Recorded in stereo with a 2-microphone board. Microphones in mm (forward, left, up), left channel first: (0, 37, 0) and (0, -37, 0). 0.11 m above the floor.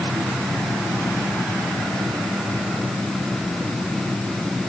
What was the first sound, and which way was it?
Only background noise.